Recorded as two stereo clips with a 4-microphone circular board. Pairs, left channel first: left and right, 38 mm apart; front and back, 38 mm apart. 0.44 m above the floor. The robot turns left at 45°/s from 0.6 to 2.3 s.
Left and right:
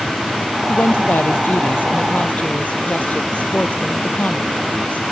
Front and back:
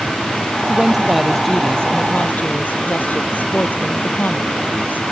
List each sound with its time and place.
0.7 s a woman speaking: 115° left; by 5.0 s 40° left